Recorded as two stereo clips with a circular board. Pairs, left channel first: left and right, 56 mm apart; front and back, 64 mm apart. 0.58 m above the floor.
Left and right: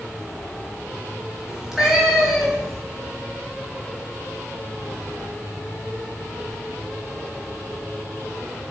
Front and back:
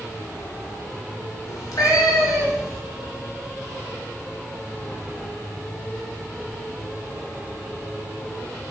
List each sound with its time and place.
1.5 s a cat meowing: 15° right, 2.5 m; by 2.8 s straight ahead, 3 m